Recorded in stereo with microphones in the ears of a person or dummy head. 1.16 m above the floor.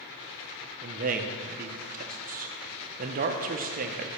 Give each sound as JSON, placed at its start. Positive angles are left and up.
{"t": 0.8, "sound": "a man speaking", "side_deg": -40, "distance_m": 0.7}